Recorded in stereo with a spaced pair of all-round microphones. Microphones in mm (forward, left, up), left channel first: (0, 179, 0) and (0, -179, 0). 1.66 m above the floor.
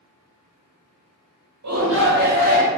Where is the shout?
50° right (ahead or behind), 0.6 m; by 2.7 s 20° right (ahead or behind), 1.5 m.